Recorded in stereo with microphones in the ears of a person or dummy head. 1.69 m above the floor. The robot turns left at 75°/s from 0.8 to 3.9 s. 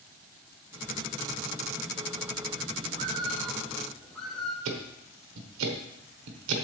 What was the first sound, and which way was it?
A bird, 115° right.